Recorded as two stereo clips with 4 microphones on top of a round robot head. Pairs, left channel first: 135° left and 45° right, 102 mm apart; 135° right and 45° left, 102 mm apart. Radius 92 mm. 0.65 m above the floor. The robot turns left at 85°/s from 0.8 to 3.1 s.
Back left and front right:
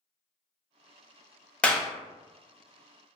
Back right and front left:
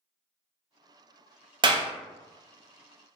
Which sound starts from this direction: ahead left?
A clap, at 1.6 s.